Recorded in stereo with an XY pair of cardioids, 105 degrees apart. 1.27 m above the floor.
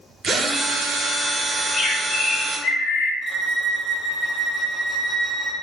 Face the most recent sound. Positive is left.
turn(degrees=-30)